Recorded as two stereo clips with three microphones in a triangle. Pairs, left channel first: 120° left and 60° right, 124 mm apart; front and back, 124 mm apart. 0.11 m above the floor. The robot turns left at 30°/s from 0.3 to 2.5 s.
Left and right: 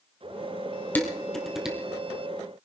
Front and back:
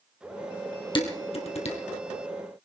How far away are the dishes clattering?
About 2.5 m.